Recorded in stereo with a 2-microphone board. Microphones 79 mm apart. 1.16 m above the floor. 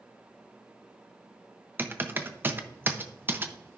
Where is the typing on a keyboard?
25° right (ahead or behind), 0.7 m.